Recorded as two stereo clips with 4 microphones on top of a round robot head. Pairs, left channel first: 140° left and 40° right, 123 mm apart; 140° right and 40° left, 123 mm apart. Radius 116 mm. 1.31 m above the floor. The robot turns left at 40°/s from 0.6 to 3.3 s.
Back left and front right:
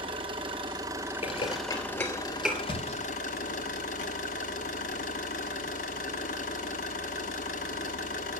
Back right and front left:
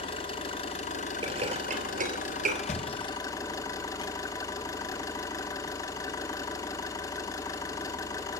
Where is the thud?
170° right, 1.7 m; by 4.1 s 165° left, 1.7 m.